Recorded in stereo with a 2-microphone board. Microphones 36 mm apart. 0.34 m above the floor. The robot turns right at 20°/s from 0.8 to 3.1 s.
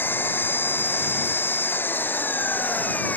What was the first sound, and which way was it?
An engine running, 75° left.